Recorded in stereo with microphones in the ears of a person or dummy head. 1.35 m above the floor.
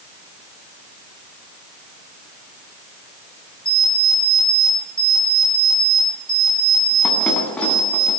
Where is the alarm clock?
5° left (ahead or behind), 8.5 m.